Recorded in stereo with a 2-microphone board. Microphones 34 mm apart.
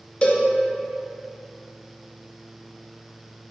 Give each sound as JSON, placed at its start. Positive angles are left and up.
{"t": 0.2, "sound": "a cowbell", "side_deg": 35, "distance_m": 0.5}